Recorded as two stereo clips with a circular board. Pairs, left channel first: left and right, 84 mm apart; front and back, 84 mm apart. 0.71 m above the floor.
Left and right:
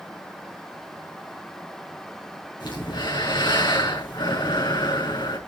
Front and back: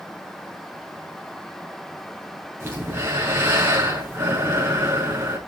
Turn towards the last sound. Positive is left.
turn(degrees=120)